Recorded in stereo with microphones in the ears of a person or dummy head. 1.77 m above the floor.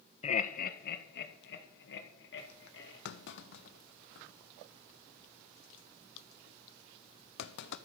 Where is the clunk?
70° left (ahead or behind), 1.0 m.